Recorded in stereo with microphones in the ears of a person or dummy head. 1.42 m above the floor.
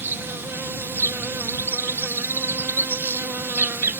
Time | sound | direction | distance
0.0 | an insect | 15° right (ahead or behind) | ?